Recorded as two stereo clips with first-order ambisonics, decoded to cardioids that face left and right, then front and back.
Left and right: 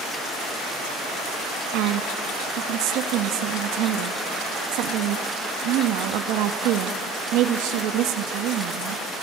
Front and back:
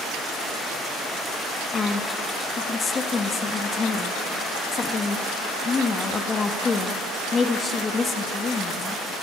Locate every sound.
1.7 s a woman speaking: 70° right, 1.1 m